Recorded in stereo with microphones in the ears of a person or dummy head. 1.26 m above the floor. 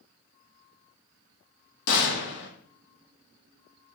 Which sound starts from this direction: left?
A gunshot, at 1.9 s.